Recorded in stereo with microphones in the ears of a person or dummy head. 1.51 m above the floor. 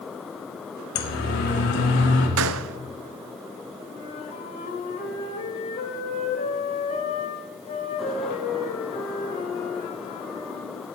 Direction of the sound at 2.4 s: 85° right.